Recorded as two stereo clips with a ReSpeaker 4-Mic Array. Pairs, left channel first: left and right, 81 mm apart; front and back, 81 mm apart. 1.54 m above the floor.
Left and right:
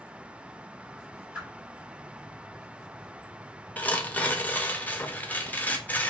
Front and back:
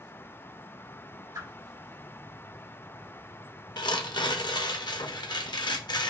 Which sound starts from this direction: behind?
A whoosh, at 1.4 s.